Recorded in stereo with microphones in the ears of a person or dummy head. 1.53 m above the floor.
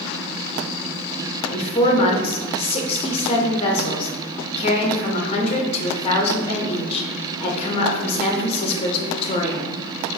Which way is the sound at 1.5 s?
35° left (ahead or behind).